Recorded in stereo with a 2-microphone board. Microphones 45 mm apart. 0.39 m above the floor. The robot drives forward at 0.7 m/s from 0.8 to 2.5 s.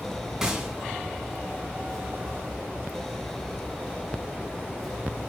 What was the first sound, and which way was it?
A gunshot, 10° right (ahead or behind).